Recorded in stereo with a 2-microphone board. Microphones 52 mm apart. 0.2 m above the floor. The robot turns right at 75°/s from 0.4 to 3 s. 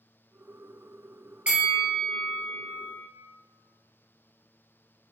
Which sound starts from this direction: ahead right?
A bell, at 1.5 s.